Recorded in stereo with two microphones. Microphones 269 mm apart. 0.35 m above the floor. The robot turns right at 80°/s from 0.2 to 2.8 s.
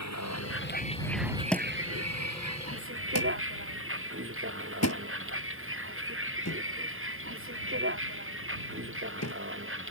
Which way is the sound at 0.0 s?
80° left.